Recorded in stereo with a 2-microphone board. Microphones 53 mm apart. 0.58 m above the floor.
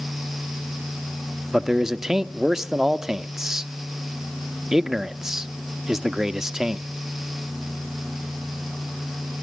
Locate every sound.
1.5 s a man speaking: 10° right (ahead or behind), 0.7 m